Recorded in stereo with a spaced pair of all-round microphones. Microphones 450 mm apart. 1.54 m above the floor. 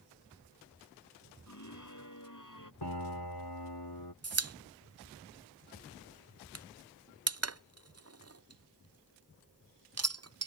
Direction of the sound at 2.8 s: 60° left (ahead or behind).